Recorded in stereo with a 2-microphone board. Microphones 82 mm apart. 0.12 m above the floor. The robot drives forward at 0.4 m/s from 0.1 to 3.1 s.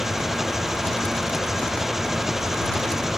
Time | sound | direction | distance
0.0 | an engine running | 5° right (ahead or behind) | ?